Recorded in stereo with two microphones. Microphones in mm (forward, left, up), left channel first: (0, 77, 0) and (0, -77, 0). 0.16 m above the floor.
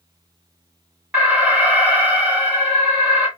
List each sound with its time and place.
1.1 s an alarm: 5° right (ahead or behind), 1.6 m